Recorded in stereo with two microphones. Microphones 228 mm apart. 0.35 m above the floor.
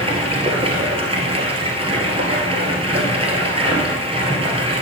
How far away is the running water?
About 1.6 m.